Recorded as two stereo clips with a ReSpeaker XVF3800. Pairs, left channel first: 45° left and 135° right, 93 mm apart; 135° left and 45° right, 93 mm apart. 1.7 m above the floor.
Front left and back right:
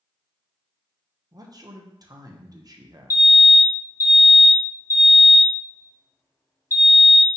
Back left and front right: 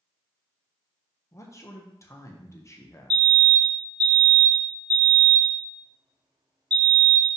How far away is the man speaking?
About 1.1 m.